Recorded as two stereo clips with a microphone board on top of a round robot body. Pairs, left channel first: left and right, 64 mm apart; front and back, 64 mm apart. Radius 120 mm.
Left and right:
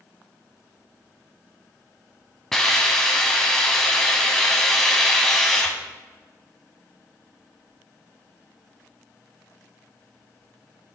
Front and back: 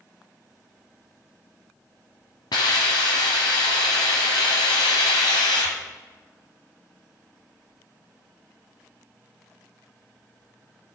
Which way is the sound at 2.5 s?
5° left.